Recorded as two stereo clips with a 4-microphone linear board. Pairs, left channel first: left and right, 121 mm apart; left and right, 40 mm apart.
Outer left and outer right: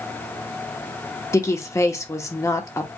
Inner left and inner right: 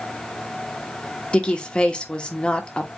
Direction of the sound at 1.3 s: 25° left (ahead or behind).